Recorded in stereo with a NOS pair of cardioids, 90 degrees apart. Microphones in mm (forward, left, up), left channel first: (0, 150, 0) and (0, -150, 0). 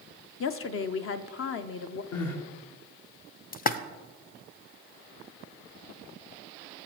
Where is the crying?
65° left, 1.8 m.